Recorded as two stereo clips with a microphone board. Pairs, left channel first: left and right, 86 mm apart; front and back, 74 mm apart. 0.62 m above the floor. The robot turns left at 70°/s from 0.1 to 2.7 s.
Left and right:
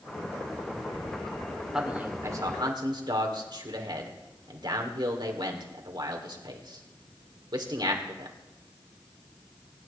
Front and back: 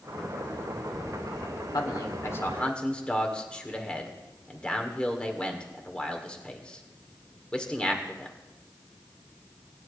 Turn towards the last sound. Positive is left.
turn(degrees=-75)